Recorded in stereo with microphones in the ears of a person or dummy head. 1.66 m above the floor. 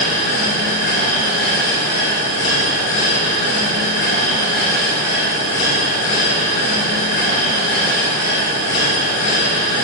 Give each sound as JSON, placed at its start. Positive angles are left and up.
{"t": 0.0, "sound": "a machine running", "side_deg": 65, "distance_m": 4.0}